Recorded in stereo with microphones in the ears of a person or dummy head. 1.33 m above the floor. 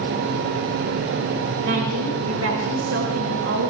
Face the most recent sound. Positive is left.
turn(degrees=-85)